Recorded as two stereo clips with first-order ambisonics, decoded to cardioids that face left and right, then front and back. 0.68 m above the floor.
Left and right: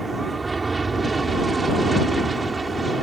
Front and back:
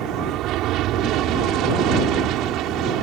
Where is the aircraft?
165° right.